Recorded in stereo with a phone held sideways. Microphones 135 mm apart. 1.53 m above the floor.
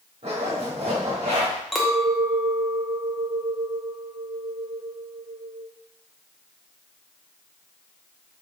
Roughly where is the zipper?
Right.